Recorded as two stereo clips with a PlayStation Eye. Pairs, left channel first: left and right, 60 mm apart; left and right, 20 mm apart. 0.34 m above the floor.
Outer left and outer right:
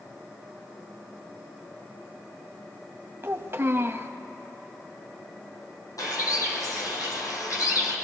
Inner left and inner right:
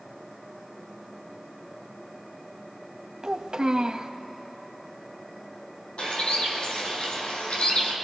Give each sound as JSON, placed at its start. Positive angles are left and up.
{"t": 3.2, "sound": "a child speaking", "side_deg": -45, "distance_m": 1.0}
{"t": 6.0, "sound": "a bird", "side_deg": 75, "distance_m": 2.5}